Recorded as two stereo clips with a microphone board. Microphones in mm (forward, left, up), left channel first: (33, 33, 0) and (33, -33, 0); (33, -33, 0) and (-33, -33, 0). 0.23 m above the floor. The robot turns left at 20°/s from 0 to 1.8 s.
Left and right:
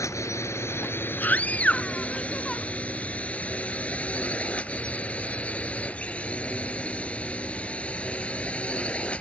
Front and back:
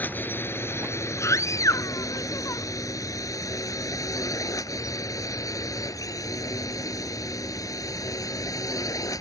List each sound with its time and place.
0.0 s a drone: 60° left; by 9.2 s 20° left
1.2 s a scream: 30° left; by 2.6 s 20° left